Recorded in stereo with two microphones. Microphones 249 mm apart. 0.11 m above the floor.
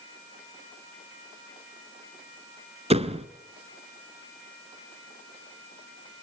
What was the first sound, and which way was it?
A door slam, 25° right (ahead or behind).